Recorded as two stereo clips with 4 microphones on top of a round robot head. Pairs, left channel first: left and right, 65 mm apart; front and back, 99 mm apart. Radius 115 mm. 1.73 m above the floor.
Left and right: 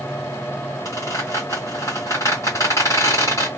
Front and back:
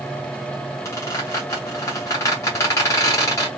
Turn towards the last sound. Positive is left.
turn(degrees=35)